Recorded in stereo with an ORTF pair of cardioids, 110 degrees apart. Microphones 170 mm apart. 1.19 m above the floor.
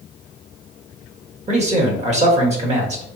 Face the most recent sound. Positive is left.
turn(degrees=-40)